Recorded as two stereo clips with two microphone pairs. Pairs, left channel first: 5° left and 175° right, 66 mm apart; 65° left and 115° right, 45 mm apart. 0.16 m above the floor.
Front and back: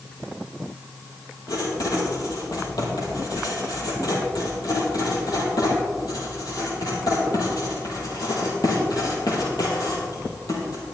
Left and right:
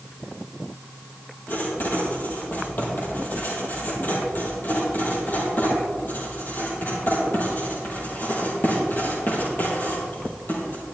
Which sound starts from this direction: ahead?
Writing, at 1.5 s.